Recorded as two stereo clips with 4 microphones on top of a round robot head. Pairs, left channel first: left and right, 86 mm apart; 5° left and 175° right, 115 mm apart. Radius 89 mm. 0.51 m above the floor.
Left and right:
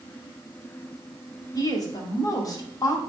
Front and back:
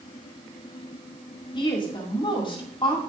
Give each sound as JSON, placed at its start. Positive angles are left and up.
{"t": 1.6, "sound": "a woman speaking", "azimuth_deg": 45, "distance_m": 2.0}